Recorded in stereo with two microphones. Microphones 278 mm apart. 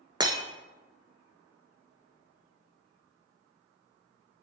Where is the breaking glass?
15° right (ahead or behind), 0.8 m.